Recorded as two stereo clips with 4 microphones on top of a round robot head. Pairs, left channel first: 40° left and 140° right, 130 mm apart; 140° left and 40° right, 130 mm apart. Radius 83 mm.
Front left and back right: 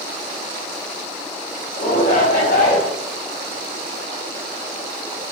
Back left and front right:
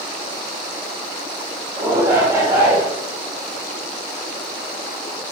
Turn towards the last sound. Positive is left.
turn(degrees=25)